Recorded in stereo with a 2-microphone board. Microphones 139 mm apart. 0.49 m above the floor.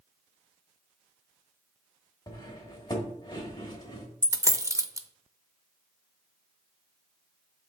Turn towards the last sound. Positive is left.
turn(degrees=-25)  # may be behind; listen again after turning